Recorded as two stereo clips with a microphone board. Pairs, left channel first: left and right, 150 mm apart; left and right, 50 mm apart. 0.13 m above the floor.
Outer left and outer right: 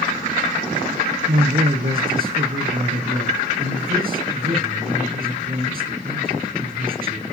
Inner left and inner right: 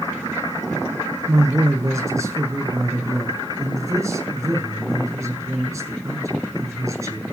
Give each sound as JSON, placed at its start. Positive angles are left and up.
{"t": 1.3, "sound": "a man speaking", "side_deg": -75, "distance_m": 6.0}